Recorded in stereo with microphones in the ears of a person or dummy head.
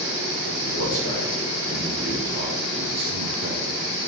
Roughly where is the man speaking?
Left.